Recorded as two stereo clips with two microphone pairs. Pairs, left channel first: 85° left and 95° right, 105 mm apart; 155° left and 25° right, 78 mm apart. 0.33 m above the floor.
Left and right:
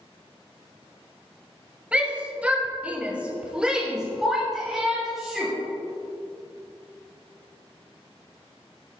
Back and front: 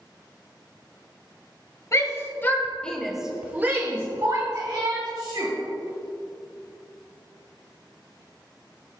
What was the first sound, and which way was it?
A shout, 170° right.